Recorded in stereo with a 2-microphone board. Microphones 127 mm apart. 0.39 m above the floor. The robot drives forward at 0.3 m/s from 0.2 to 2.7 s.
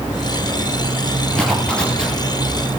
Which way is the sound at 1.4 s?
5° left (ahead or behind).